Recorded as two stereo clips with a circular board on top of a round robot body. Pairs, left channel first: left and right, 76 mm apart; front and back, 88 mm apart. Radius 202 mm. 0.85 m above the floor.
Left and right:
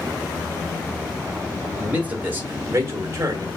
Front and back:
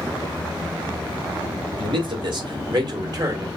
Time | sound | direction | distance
1.8 | a man speaking | 165° right | 2.5 m